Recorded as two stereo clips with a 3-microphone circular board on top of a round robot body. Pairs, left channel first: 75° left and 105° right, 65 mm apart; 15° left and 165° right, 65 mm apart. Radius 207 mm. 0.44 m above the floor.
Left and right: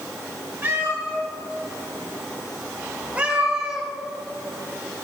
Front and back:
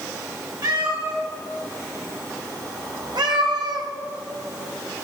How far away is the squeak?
No squeak in this recording.